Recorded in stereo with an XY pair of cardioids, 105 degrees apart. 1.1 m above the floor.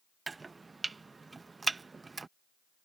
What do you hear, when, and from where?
0.3 s chopping: 25° right